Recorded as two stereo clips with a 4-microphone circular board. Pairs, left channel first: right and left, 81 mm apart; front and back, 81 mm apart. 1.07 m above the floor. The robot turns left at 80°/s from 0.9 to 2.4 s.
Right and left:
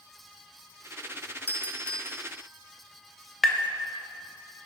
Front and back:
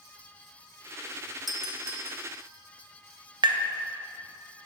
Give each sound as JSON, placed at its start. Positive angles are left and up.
{"t": 1.5, "sound": "a doorbell", "azimuth_deg": -95, "distance_m": 0.7}
{"t": 3.4, "sound": "tapping", "azimuth_deg": -175, "distance_m": 0.6}